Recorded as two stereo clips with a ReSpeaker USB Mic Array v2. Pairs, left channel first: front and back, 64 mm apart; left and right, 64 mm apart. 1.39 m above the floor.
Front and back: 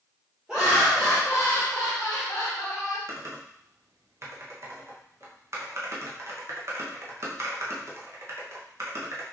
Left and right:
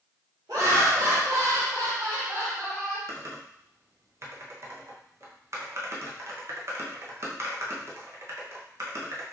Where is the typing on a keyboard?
135° right, 0.9 m.